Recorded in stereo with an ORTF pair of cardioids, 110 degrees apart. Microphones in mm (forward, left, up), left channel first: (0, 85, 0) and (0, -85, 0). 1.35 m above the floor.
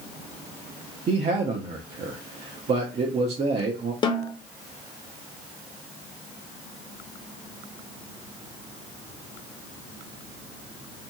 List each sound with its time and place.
1.1 s a man speaking: 40° right, 0.6 m
4.0 s a snare drum: 30° left, 0.6 m